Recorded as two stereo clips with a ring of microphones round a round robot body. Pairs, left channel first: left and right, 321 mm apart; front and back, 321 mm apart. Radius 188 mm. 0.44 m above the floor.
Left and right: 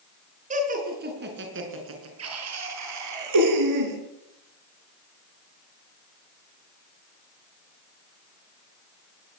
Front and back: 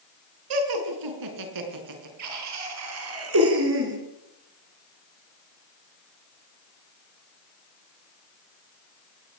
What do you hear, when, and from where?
0.5 s laughter: 160° right, 5.5 m; by 4.0 s 120° right, 6 m